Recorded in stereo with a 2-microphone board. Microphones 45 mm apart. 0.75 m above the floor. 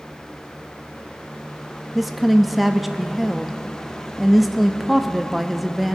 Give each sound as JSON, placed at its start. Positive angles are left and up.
{"t": 1.9, "sound": "a woman speaking", "side_deg": -5, "distance_m": 0.6}